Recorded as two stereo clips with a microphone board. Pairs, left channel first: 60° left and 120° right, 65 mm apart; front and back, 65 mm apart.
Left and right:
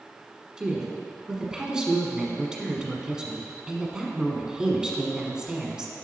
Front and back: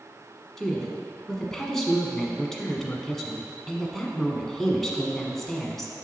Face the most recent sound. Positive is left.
turn(degrees=-70)